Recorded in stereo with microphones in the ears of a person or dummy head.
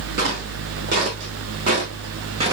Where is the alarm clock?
I don't hear an alarm clock.